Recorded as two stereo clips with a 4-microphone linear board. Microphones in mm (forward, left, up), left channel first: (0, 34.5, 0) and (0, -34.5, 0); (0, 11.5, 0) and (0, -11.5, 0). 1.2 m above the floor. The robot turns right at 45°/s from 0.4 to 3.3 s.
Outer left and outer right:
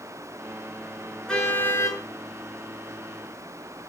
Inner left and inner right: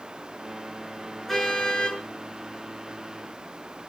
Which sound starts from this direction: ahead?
A car horn, at 1.3 s.